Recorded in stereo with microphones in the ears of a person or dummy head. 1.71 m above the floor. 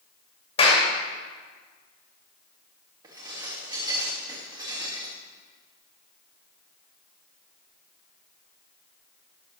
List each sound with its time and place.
0.6 s a clap: 35° left (ahead or behind), 2.5 m
3.0 s dishes clattering: 20° right (ahead or behind), 2.5 m